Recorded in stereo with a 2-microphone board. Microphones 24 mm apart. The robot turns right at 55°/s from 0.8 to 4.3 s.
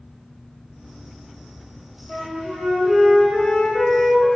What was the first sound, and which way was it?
A flute, 20° right (ahead or behind).